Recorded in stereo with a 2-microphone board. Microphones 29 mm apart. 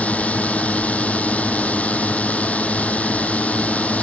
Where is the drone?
55° left (ahead or behind).